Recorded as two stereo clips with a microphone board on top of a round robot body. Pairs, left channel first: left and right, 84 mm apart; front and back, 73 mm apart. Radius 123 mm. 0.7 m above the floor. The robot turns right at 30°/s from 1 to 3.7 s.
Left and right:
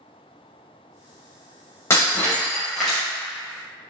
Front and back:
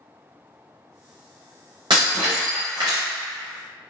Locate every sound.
1.9 s breaking glass: 150° left, 0.7 m; by 3.0 s 175° right, 0.7 m